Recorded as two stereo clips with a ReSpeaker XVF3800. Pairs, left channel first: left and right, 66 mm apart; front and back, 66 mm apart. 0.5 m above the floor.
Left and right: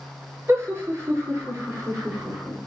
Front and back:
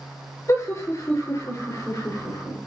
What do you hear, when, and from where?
0.5 s laughter: 40° right, 9 m